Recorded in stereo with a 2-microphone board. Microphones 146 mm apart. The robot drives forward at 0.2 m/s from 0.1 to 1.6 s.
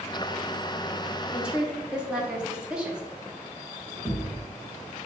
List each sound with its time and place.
1.3 s a woman speaking: 5° right (ahead or behind), 0.7 m
4.0 s a thud: centre (ahead or behind), 1.1 m